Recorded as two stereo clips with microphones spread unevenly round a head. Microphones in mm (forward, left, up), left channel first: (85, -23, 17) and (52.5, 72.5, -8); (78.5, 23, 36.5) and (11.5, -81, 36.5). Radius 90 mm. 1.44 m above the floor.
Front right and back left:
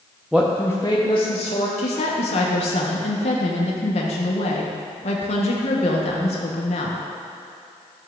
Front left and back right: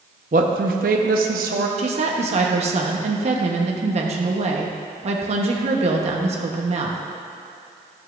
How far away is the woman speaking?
About 0.9 m.